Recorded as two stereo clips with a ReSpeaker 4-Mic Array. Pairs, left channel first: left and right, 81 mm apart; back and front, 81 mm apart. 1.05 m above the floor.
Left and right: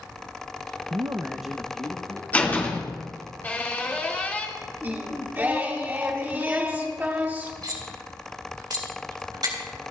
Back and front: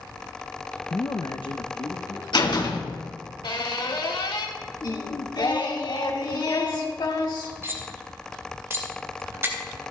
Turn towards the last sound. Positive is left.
turn(degrees=-60)